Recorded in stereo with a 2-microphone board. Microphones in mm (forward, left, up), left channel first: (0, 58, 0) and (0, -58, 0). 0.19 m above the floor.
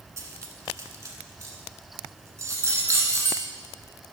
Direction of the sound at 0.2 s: 25° right (ahead or behind).